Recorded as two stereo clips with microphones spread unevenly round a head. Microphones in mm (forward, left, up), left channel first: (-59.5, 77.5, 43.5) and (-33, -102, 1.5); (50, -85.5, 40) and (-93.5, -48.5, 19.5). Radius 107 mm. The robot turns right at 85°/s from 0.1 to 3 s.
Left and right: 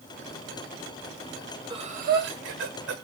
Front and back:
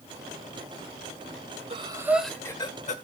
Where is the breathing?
150° right, 1.8 m; by 3.0 s 40° right, 1.8 m.